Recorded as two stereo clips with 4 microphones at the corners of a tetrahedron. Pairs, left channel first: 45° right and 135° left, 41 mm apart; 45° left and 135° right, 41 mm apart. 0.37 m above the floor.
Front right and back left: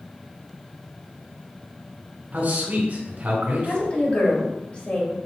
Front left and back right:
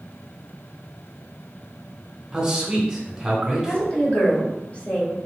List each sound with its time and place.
2.3 s a man speaking: 150° left, 1.9 m
3.7 s a woman speaking: straight ahead, 1.5 m